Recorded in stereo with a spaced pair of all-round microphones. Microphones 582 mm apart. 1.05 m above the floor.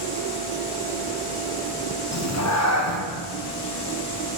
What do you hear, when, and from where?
2.1 s a cat meowing: 30° left (ahead or behind), 0.6 m